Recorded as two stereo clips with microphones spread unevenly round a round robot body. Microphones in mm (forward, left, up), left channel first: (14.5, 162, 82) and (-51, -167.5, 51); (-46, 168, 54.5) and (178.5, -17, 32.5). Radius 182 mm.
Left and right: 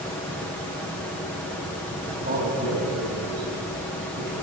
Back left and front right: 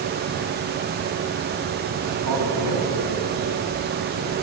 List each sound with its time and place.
2.1 s a man speaking: 30° right, 7 m; by 4.3 s 40° right, 8.5 m